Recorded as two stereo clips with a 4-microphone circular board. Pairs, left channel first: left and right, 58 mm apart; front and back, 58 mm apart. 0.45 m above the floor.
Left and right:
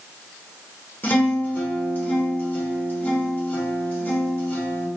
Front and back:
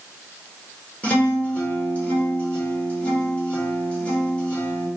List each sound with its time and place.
1.0 s a guitar: 50° left, 1.2 m